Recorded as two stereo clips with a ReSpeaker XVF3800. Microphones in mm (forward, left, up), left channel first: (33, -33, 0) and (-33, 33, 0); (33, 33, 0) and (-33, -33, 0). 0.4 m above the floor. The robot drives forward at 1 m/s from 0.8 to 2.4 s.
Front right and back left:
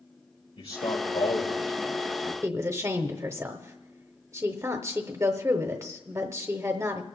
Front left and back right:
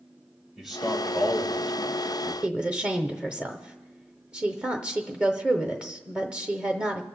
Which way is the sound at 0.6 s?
50° right.